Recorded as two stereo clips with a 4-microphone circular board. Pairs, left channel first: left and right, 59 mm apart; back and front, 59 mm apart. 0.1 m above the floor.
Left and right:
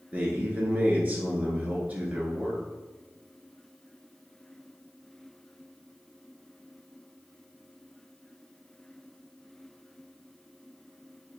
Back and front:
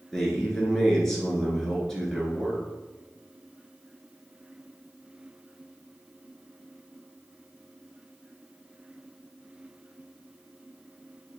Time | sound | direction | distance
0.1 | a man speaking | 105° right | 1.2 m